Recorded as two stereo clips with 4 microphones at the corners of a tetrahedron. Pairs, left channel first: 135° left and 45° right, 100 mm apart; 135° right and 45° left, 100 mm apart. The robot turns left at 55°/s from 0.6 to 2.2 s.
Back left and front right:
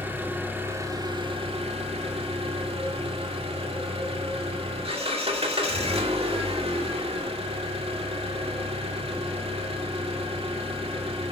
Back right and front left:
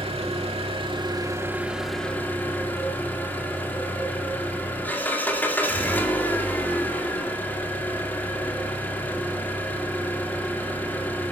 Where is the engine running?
25° left, 2 m; by 11.3 s 60° right, 2 m.